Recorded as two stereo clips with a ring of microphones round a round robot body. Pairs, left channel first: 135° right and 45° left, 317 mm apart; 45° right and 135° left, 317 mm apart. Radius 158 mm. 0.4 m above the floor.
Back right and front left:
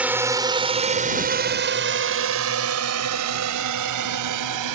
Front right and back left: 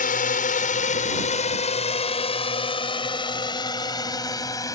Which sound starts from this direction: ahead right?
A drone, at 0.0 s.